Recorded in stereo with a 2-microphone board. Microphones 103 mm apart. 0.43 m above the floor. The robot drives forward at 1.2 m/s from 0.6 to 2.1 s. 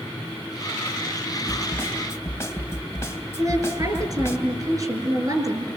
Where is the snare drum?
20° left (ahead or behind), 3.5 m; by 4.4 s 25° left (ahead or behind), 3 m.